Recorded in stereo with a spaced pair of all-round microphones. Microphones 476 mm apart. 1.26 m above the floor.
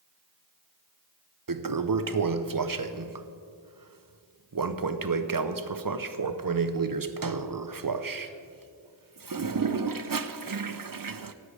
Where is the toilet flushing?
45° right (ahead or behind), 0.6 m.